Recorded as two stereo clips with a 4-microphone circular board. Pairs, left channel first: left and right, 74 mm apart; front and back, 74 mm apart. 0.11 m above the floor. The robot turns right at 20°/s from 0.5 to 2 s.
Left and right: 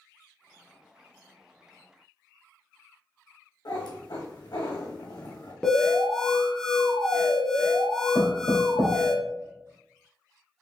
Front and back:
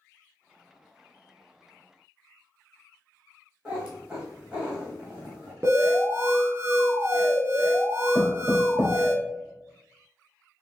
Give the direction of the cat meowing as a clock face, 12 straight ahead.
9 o'clock.